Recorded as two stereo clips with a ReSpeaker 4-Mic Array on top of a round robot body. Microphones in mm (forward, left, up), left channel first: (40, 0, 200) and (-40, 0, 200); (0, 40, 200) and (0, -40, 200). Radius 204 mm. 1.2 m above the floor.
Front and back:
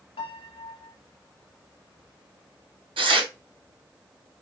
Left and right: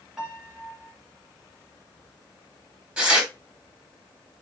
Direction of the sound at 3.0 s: 165° right.